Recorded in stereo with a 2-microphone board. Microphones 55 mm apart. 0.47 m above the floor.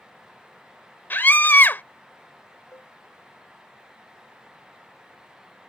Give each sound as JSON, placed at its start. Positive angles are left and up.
{"t": 1.1, "sound": "a scream", "side_deg": 40}
{"t": 2.7, "sound": "a cowbell", "side_deg": 65}